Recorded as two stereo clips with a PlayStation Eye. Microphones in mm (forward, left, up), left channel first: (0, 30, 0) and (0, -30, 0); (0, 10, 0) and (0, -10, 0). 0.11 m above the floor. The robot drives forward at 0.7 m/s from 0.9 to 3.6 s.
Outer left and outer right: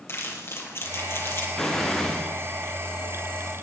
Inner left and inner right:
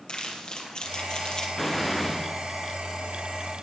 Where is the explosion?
10° left (ahead or behind), 2.5 m.